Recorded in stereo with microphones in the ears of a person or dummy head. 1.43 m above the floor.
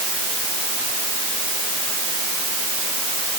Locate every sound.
Only background noise.